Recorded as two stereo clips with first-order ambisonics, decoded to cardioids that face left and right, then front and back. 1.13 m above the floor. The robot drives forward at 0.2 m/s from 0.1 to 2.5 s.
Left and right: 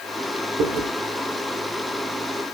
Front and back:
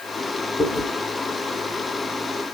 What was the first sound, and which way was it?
Chewing, 65° right.